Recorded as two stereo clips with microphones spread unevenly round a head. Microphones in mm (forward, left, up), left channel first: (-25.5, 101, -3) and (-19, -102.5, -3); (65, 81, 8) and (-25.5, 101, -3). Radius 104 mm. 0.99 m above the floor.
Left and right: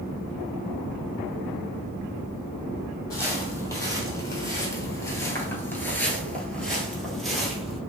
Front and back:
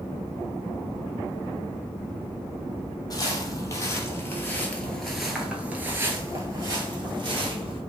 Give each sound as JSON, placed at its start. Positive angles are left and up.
{"t": 3.1, "sound": "footsteps", "azimuth_deg": 20, "distance_m": 1.6}